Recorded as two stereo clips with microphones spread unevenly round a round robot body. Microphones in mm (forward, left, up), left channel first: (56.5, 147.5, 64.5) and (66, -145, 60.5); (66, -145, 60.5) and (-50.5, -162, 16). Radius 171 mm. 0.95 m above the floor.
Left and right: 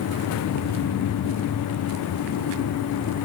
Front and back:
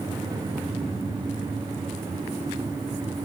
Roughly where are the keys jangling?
No keys jangling in this recording.